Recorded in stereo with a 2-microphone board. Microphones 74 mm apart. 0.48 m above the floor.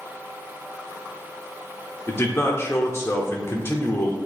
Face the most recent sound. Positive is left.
turn(degrees=35)  # may be behind; listen again after turning